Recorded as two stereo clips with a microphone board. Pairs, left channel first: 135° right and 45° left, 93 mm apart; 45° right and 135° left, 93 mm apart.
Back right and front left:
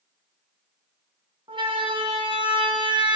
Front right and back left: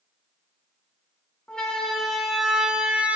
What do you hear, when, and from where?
1.5 s a siren: 35° left, 4 m; by 3.2 s 60° left, 3.5 m